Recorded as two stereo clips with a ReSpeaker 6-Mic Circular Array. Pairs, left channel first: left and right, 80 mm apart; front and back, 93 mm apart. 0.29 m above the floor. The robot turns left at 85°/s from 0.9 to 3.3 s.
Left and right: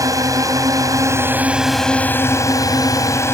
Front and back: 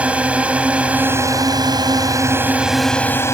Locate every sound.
0.0 s a drone: 110° right; by 3.3 s 45° left